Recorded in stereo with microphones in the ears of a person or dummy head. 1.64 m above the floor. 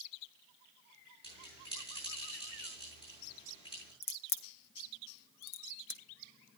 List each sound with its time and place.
1.2 s a bell: 30° left (ahead or behind), 9 m
4.0 s a crack: 60° left (ahead or behind), 0.9 m